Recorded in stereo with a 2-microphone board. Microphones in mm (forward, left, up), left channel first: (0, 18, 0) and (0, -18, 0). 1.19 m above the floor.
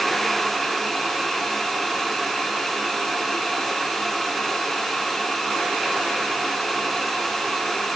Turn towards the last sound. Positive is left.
No sound to turn to.